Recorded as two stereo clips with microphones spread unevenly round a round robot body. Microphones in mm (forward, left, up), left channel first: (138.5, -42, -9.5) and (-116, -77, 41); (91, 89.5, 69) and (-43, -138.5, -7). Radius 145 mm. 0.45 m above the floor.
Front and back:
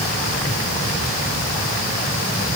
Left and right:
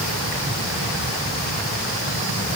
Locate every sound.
Only background noise.